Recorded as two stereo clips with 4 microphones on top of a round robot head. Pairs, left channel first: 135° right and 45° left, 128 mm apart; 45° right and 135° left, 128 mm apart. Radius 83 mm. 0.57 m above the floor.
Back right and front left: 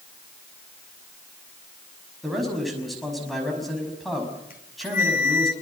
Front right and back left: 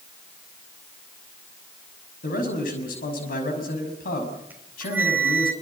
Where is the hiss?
I don't hear a hiss.